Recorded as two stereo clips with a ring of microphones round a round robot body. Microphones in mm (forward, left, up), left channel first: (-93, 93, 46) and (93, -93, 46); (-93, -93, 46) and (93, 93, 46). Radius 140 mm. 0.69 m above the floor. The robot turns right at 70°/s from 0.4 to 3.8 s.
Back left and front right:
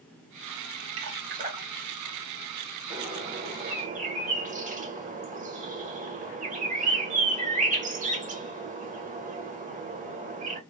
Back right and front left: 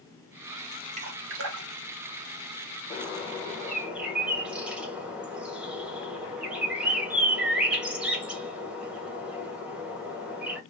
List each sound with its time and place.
1.0 s dripping: 15° right, 1.0 m; by 1.7 s 35° left, 1.0 m
2.9 s a bird: 100° right, 1.1 m; by 10.6 s 35° right, 1.1 m